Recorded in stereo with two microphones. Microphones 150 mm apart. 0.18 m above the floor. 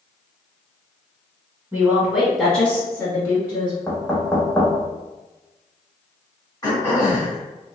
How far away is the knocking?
About 1.0 m.